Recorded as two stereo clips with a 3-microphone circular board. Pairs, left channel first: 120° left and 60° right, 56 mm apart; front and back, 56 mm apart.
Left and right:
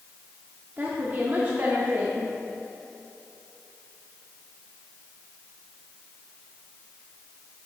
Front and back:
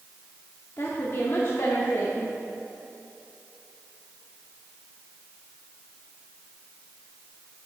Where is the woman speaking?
15° right, 0.9 m.